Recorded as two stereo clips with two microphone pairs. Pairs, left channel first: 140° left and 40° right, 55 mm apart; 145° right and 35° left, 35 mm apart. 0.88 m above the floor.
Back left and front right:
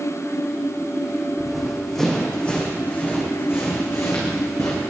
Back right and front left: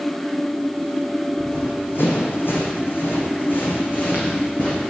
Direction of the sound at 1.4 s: 120° right.